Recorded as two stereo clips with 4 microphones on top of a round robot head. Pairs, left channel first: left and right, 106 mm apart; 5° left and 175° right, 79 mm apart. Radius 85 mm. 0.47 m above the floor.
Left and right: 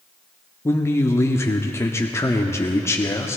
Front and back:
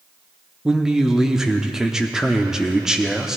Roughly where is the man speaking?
Left.